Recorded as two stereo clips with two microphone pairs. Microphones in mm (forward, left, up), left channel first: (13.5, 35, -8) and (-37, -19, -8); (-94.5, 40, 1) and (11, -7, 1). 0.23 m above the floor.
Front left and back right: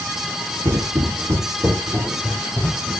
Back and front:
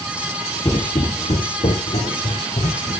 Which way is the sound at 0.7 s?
155° right.